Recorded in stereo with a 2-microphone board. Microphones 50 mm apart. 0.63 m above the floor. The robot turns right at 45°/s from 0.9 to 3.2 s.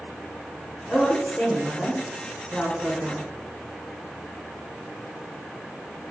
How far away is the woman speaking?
About 1.1 m.